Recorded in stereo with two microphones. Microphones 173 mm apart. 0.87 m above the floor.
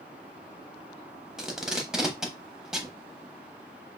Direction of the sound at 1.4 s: 5° right (ahead or behind).